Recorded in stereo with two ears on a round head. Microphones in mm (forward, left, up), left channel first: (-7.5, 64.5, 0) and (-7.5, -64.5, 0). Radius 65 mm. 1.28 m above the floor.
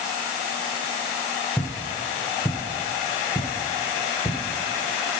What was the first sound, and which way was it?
Footsteps, 15° left (ahead or behind).